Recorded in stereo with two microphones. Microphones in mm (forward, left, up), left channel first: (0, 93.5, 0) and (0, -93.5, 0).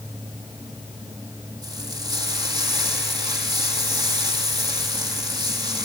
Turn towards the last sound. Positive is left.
turn(degrees=-20)  # may be behind; listen again after turning